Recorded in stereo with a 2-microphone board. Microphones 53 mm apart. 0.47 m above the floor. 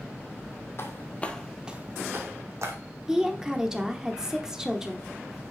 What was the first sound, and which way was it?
Footsteps, 50° left (ahead or behind).